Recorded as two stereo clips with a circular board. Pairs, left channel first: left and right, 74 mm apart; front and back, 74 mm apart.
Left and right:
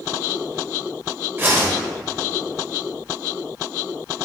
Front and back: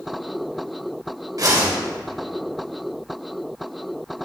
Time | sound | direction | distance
1.4 | a whoosh | 145° right | 1.8 m